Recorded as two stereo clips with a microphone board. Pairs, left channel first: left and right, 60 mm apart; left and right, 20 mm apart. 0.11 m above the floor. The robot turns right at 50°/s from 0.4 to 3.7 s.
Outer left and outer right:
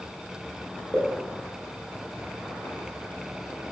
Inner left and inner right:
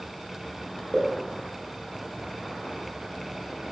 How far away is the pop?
About 1.5 m.